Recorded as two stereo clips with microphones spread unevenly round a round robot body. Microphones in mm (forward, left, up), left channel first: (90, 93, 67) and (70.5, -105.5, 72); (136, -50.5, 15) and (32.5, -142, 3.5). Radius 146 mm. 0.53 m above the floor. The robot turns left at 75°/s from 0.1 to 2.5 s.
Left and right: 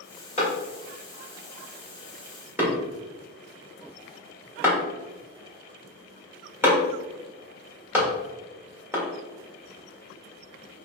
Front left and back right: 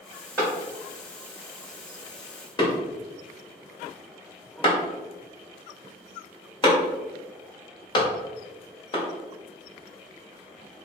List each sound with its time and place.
0.4 s a clap: 145° left, 1.6 m; by 9.0 s 15° right, 1.6 m